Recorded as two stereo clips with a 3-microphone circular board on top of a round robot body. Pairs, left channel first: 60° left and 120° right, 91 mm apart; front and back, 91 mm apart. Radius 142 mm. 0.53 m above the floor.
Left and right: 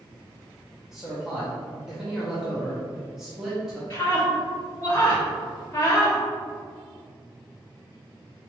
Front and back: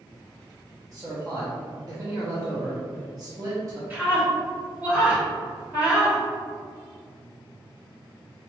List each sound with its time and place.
0.9 s a man speaking: 160° left, 1.1 m
3.9 s a scream: 115° left, 1.8 m